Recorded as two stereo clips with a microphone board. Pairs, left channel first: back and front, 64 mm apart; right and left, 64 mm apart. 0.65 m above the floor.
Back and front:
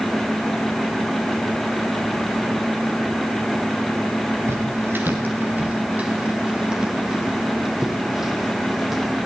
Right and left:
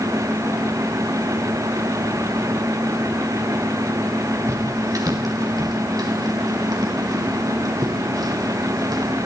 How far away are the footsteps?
About 4 m.